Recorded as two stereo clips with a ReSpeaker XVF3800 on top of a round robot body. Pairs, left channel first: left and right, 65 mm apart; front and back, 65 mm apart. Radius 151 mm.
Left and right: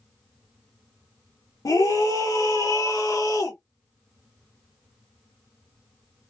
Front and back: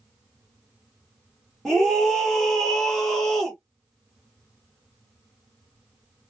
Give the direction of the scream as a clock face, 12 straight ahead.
9 o'clock.